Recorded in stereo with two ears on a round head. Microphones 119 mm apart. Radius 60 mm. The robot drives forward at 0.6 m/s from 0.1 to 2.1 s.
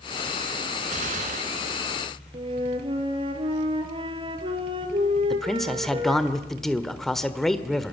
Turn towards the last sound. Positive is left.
turn(degrees=5)  # may be behind; listen again after turning